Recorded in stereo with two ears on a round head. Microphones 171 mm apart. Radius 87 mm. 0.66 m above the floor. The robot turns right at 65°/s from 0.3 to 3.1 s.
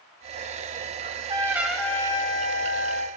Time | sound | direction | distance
1.0 | a trumpet | 45° right | 2.5 m